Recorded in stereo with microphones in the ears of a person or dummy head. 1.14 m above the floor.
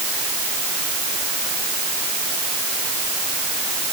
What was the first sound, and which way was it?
Only background noise.